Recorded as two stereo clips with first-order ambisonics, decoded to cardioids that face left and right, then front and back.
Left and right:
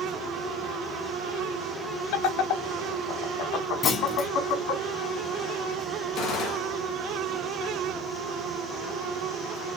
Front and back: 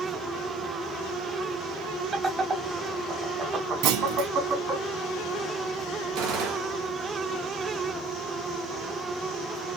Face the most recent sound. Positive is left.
turn(degrees=155)